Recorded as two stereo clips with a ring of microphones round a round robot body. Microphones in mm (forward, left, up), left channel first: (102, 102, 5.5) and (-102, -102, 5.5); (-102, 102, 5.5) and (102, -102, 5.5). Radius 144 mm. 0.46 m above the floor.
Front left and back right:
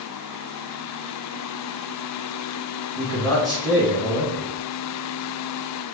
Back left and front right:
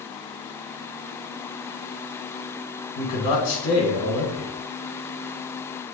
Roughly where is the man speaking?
Behind left.